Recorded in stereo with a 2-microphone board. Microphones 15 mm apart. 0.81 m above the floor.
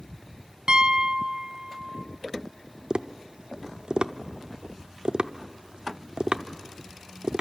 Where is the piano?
50° right (ahead or behind), 0.9 m.